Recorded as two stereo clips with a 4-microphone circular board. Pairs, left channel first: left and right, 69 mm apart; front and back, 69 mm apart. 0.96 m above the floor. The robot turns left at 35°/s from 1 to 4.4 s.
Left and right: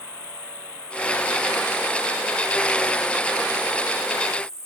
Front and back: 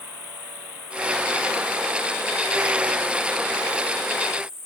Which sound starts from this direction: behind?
An insect, at 0.0 s.